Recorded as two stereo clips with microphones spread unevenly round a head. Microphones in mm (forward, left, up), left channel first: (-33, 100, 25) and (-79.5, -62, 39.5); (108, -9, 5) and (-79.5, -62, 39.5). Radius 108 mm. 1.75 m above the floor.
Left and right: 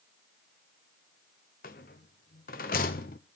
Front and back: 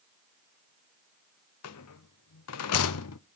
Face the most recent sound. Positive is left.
turn(degrees=20)